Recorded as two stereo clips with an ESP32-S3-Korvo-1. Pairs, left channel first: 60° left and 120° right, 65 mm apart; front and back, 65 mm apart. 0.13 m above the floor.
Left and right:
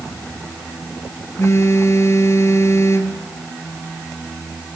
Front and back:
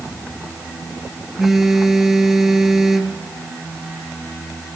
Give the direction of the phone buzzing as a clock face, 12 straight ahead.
9 o'clock.